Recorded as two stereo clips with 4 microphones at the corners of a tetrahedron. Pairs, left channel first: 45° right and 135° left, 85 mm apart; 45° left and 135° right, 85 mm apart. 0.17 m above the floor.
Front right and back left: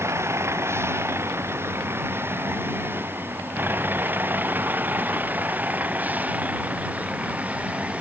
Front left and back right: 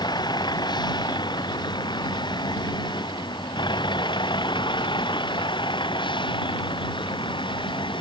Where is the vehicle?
75° left; by 8.0 s 60° left.